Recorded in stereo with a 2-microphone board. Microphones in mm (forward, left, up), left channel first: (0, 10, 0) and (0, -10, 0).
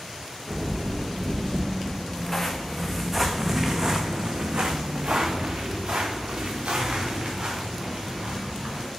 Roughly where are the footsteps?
Left.